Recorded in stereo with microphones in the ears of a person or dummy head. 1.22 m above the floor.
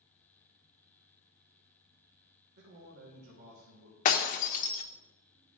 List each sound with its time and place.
2.6 s a man speaking: 60° right (ahead or behind), 1.8 m
4.0 s breaking glass: 40° left (ahead or behind), 1.1 m